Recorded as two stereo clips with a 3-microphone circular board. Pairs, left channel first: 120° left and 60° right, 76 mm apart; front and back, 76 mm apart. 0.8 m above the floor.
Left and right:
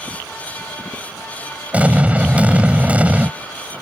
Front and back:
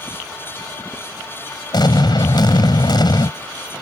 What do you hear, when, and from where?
1.7 s an explosion: 10° left